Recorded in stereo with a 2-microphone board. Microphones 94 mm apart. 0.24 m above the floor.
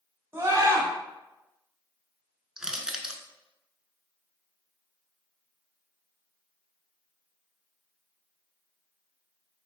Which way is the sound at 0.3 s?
25° right (ahead or behind).